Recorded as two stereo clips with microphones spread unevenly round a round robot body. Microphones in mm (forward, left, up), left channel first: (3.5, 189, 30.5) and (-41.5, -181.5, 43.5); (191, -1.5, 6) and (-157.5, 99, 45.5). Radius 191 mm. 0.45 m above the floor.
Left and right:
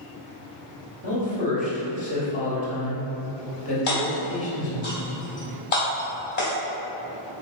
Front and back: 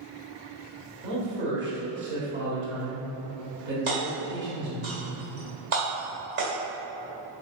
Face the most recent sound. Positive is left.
turn(degrees=140)